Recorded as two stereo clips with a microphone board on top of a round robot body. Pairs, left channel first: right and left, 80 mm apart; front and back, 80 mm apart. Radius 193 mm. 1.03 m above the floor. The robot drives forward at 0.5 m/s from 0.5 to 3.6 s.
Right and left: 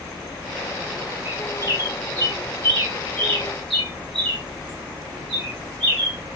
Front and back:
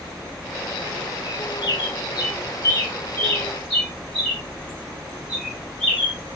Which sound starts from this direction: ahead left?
A bird, at 1.2 s.